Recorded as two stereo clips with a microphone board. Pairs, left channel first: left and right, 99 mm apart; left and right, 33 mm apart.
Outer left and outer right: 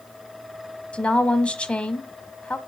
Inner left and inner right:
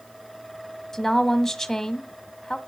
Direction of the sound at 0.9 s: 10° left (ahead or behind).